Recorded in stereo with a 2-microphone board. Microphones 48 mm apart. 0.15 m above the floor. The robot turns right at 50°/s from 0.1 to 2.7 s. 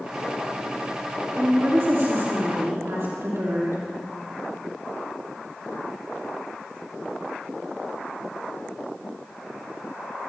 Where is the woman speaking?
145° right, 5.5 m; by 3.8 s 80° right, 5.5 m.